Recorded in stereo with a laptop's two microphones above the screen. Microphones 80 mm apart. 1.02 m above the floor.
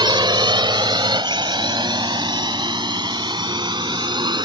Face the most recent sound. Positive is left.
turn(degrees=-65)  # may be behind; listen again after turning